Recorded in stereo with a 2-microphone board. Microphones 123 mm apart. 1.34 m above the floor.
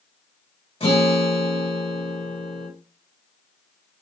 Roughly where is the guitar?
Left.